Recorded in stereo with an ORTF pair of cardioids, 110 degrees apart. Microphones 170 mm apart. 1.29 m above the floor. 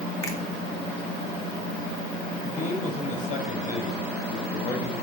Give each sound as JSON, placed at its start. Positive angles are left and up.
{"t": 0.2, "sound": "a finger snap", "azimuth_deg": 20, "distance_m": 2.0}
{"t": 2.4, "sound": "a man speaking", "azimuth_deg": 50, "distance_m": 5.0}